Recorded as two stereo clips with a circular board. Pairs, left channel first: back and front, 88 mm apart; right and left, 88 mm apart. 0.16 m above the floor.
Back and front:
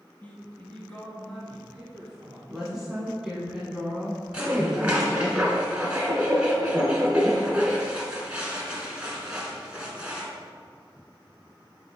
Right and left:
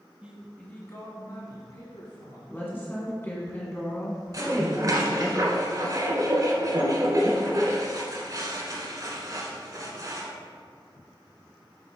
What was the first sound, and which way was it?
A man speaking, 140° left.